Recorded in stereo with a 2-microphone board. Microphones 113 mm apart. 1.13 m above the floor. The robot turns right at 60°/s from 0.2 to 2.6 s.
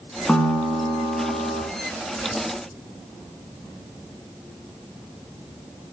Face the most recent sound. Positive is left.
turn(degrees=-50)